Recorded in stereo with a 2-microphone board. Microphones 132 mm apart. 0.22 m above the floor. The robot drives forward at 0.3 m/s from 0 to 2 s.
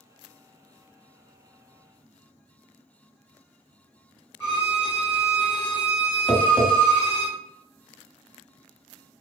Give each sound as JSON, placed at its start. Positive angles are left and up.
{"t": 4.4, "sound": "a violin", "side_deg": 40, "distance_m": 1.1}
{"t": 6.3, "sound": "tapping", "side_deg": 20, "distance_m": 1.1}